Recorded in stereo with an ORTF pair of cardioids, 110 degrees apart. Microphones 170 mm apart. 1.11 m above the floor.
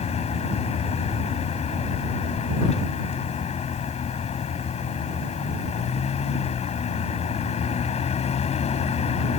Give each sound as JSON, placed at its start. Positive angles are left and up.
{"t": 0.0, "sound": "a vehicle", "azimuth_deg": 40}